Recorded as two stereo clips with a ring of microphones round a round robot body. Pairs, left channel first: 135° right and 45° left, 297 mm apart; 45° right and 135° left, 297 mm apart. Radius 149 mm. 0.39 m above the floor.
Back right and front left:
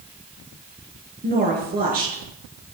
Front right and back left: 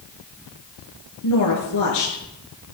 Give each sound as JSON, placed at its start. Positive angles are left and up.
{"t": 1.2, "sound": "a woman speaking", "azimuth_deg": -15, "distance_m": 5.5}